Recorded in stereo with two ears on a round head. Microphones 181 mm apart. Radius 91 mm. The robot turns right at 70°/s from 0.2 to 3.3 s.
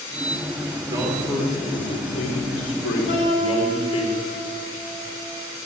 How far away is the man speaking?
About 3 m.